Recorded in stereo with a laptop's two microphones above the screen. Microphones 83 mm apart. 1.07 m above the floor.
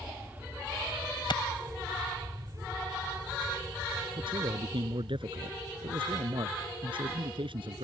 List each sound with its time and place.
0.0 s an aircraft: 15° right (ahead or behind); by 7.8 s 60° right (ahead or behind)
1.3 s a clap: 65° left (ahead or behind)
4.2 s a man speaking: 80° right